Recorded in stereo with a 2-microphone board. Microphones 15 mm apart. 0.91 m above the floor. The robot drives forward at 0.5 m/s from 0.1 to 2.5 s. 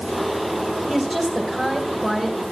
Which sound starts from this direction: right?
A woman speaking, at 0.9 s.